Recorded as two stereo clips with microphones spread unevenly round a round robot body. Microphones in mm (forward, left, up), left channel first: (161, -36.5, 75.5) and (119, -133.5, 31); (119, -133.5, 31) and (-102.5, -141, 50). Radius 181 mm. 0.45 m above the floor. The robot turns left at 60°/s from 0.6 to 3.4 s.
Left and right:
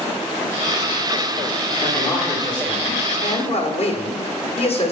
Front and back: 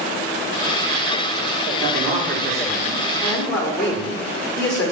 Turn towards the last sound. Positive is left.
turn(degrees=80)